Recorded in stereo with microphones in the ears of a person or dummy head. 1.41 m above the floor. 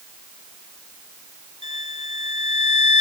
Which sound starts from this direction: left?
A violin, at 1.6 s.